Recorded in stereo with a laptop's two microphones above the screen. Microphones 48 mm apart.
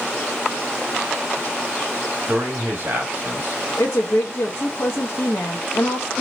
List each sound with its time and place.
2.3 s a man speaking: 50° right (ahead or behind), 1.8 m
3.8 s a woman speaking: 60° left (ahead or behind), 0.9 m